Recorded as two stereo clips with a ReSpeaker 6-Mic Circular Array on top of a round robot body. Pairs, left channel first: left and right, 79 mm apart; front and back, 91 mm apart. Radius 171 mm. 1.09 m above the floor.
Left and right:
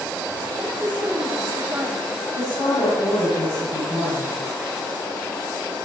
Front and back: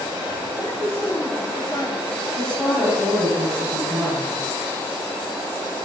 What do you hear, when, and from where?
0.6 s a woman speaking: 20° right, 4 m
2.3 s a woman speaking: 75° left, 6.5 m